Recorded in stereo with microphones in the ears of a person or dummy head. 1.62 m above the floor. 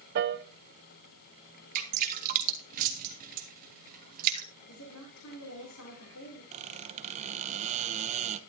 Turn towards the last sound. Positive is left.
turn(degrees=-35)  # may be behind; listen again after turning